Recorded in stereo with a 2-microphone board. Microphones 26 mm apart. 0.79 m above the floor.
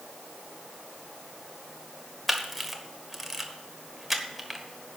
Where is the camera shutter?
5° right (ahead or behind), 1.3 m.